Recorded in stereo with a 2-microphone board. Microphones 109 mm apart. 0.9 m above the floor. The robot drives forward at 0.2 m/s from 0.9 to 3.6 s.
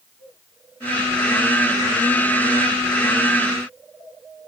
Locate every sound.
Only background noise.